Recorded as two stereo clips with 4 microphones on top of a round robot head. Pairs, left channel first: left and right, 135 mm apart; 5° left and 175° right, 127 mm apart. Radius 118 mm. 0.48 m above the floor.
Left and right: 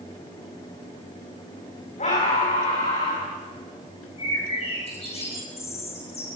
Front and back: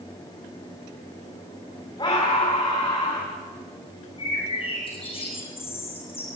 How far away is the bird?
About 8.5 m.